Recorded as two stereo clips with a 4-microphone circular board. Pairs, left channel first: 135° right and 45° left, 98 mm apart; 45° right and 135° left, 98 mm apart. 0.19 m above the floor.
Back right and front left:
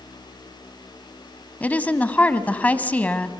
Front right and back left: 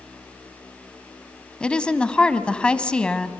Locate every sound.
1.6 s a woman speaking: 100° right, 1.0 m